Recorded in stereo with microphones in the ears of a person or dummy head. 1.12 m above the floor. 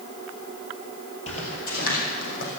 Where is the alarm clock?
I don't hear an alarm clock.